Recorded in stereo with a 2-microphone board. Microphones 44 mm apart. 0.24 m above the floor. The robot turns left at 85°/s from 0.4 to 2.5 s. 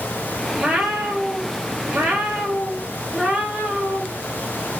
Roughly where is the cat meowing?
Ahead.